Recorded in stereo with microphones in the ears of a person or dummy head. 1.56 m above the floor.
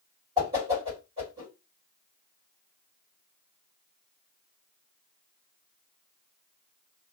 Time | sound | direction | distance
0.4 | a whoosh | 25° right (ahead or behind) | 1.7 m